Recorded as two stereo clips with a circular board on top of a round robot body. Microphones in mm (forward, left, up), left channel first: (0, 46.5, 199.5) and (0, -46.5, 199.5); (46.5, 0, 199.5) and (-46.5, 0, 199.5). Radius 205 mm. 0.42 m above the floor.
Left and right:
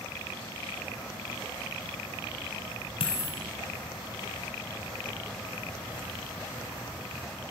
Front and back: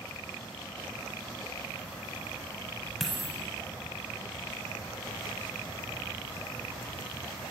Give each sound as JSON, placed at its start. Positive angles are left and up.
{"t": 3.0, "sound": "a dropped coin", "azimuth_deg": 90, "distance_m": 0.9}